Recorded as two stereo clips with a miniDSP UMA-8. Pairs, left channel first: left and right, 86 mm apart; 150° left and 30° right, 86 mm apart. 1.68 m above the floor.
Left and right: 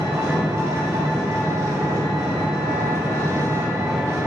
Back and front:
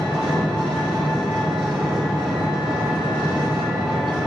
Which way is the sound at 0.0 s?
40° right.